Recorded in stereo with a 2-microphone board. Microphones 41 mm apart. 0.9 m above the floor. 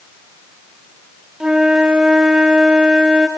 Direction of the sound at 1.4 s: 20° right (ahead or behind).